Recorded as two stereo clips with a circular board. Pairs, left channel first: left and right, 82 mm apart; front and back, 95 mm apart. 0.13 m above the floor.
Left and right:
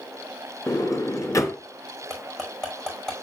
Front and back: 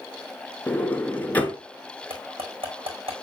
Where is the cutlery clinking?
170° left, 5.5 m.